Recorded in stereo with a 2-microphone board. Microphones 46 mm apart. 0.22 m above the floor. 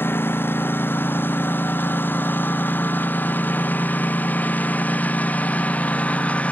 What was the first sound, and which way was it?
A lawn mower, 50° left (ahead or behind).